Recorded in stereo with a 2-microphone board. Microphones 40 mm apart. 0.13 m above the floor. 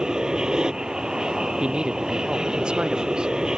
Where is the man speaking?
20° right (ahead or behind).